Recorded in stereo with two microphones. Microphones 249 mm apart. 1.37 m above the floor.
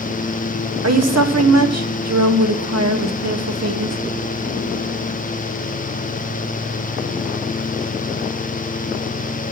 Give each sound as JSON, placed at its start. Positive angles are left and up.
{"t": 0.8, "sound": "a woman speaking", "side_deg": -75, "distance_m": 0.9}